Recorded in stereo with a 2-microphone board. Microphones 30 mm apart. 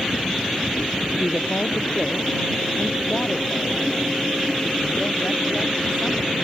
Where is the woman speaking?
55° left (ahead or behind); by 6.5 s 30° left (ahead or behind).